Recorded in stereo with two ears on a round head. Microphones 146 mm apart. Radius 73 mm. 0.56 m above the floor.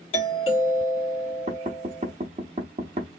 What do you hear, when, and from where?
0.1 s a doorbell: 35° left (ahead or behind), 1.7 m
1.5 s knocking: 40° right (ahead or behind), 0.7 m